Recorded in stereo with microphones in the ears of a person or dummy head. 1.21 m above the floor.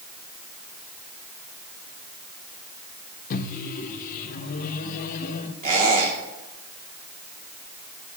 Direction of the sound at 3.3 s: 50° left (ahead or behind).